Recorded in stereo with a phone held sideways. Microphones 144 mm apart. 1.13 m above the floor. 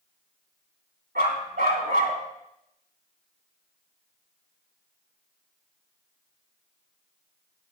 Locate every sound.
1.1 s a dog barking: 80° right, 4 m